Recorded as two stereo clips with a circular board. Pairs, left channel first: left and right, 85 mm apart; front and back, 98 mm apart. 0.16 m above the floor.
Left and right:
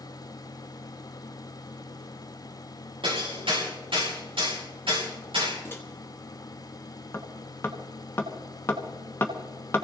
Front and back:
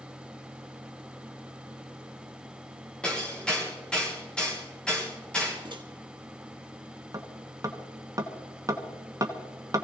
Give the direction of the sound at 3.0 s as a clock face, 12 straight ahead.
3 o'clock.